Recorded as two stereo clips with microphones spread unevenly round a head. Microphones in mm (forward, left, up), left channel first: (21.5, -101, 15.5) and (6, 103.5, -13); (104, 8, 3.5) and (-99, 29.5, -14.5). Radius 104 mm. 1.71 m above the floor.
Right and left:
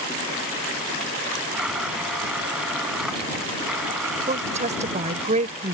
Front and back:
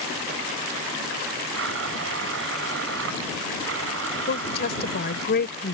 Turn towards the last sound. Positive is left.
turn(degrees=35)